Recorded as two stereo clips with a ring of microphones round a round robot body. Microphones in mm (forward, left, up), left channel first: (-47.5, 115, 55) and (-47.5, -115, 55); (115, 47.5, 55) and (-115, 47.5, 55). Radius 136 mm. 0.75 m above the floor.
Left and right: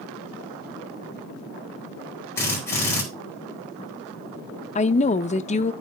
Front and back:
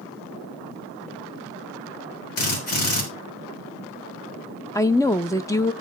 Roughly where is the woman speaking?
Ahead left.